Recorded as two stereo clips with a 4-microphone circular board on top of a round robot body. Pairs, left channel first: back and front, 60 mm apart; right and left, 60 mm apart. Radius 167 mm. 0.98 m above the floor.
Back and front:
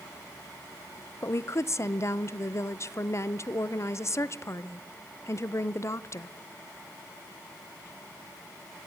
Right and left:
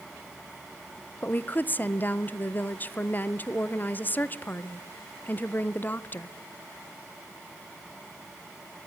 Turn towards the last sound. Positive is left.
turn(degrees=-145)